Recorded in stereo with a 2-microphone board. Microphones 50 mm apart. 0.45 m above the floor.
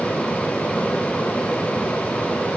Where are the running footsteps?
No running footsteps in this recording.